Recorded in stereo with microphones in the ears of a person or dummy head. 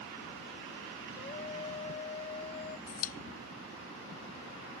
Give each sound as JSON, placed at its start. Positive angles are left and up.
{"t": 1.2, "sound": "a scream", "side_deg": 30}
{"t": 2.9, "sound": "a pop", "side_deg": 45}